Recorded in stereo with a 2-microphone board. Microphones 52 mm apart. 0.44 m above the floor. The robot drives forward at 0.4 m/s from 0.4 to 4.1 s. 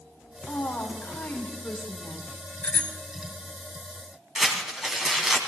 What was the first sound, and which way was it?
A woman speaking, 45° left (ahead or behind).